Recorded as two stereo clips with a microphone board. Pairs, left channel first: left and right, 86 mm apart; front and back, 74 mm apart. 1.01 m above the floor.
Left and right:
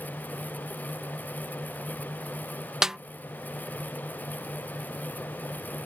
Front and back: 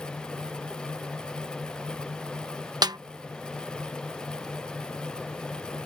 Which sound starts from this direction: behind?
A snare drum, at 2.8 s.